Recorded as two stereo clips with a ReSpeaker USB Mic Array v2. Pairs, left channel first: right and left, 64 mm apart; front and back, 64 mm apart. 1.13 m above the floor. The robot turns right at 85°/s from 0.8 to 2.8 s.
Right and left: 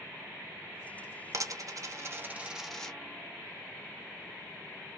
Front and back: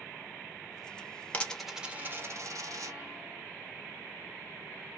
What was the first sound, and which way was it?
A dropped coin, 65° left.